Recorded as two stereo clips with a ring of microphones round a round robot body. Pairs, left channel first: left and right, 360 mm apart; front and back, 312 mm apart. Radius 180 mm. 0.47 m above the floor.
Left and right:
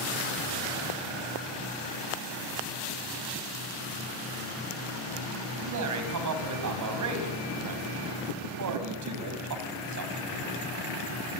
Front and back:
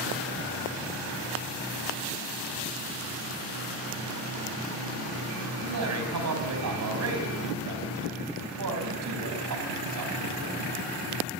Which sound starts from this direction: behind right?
A man speaking, at 5.6 s.